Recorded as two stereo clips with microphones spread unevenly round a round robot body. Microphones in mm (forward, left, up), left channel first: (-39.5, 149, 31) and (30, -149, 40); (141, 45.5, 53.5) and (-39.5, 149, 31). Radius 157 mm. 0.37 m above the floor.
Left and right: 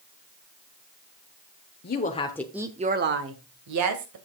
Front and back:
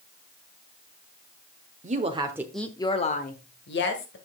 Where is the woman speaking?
140° left, 1.1 m; by 4.2 s 60° right, 1.8 m.